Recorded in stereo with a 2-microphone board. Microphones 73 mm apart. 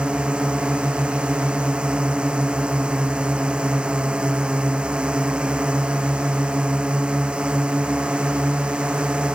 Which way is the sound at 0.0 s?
15° right (ahead or behind).